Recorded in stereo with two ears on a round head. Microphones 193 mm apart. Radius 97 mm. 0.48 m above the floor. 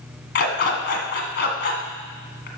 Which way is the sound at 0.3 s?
50° left (ahead or behind).